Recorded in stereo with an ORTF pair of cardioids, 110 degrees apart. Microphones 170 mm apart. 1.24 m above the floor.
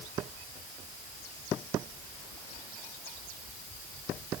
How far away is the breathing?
I don't hear breathing.